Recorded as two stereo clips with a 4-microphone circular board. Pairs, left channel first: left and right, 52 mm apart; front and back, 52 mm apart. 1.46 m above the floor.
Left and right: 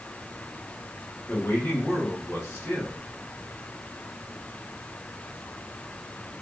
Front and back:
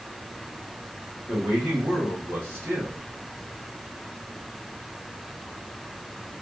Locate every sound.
1.3 s a man speaking: 145° left, 1.8 m